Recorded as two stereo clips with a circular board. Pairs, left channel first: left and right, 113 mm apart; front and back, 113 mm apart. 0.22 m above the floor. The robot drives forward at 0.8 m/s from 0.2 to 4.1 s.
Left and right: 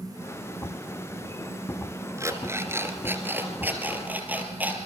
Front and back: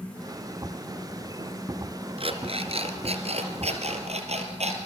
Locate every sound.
2.2 s an alarm clock: 155° right, 1.9 m; by 4.8 s 165° right, 3.5 m